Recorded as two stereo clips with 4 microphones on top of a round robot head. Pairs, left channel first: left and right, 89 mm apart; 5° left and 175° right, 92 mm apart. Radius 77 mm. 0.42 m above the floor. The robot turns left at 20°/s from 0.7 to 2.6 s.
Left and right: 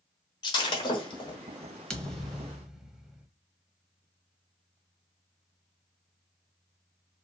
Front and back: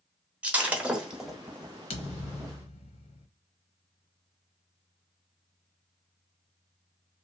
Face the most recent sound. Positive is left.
turn(degrees=-5)